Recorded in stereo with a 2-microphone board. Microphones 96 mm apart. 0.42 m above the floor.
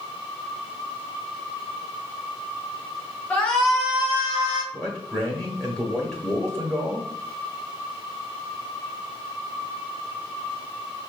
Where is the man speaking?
5° left (ahead or behind), 1.2 m.